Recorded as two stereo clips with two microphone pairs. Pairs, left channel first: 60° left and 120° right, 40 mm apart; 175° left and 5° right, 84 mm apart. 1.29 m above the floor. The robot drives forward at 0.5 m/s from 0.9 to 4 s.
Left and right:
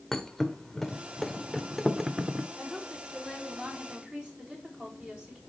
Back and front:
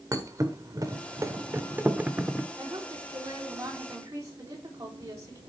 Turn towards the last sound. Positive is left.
turn(degrees=-50)